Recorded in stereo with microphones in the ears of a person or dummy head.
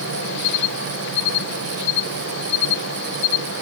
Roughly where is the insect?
Left.